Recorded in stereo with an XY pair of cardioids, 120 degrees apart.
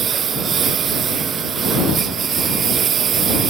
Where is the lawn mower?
45° right.